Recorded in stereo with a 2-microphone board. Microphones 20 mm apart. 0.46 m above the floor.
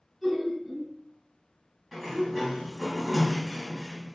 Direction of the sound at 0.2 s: 10° left (ahead or behind).